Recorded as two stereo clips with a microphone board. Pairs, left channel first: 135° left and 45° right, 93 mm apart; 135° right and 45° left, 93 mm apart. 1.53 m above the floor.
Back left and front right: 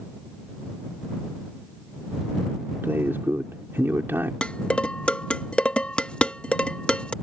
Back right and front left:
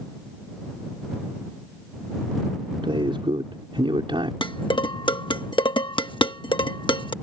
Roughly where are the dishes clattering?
Behind right.